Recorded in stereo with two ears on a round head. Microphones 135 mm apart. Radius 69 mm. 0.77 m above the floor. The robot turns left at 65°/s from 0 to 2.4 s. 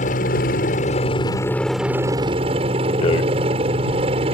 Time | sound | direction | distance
0.0 | a helicopter | 115° left | ?
3.0 | a rattle | 35° left (ahead or behind) | ?